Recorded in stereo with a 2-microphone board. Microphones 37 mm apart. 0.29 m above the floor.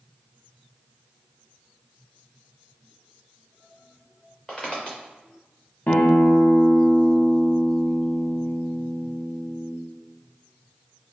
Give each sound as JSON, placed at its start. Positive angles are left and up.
{"t": 4.5, "sound": "footsteps", "side_deg": 15, "distance_m": 1.4}
{"t": 5.9, "sound": "a guitar", "side_deg": 60, "distance_m": 0.8}